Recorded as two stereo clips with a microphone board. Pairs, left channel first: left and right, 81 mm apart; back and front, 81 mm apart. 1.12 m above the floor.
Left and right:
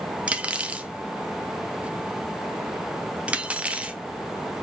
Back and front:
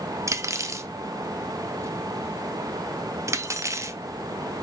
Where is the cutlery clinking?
20° right, 0.5 m.